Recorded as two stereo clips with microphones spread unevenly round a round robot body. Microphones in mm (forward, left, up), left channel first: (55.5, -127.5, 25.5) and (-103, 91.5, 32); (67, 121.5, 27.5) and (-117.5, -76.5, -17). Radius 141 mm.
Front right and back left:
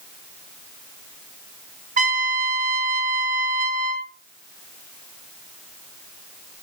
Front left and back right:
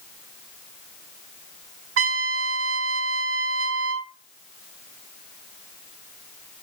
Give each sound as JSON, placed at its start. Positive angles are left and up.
{"t": 2.0, "sound": "a trumpet", "azimuth_deg": -175, "distance_m": 0.6}